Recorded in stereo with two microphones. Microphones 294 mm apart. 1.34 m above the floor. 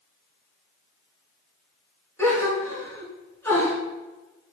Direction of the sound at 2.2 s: 10° left (ahead or behind).